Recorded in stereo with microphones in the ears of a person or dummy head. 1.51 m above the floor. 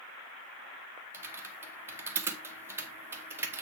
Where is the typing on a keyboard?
10° right (ahead or behind), 1.6 m.